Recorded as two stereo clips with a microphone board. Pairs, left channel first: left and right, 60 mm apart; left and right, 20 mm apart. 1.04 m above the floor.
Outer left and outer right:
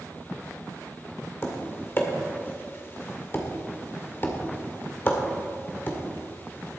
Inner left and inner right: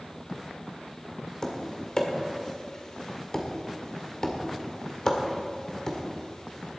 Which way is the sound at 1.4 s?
35° left (ahead or behind).